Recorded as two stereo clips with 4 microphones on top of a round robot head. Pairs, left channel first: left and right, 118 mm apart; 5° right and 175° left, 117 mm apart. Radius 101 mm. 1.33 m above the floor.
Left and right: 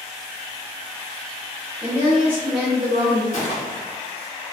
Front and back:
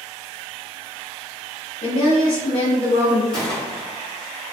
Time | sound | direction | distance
1.8 | a woman speaking | straight ahead | 0.6 m
3.3 | a gunshot | 80° left | 1.4 m